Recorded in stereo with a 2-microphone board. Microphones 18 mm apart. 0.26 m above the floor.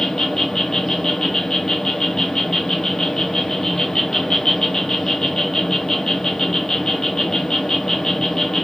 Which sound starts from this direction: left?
An insect, at 0.0 s.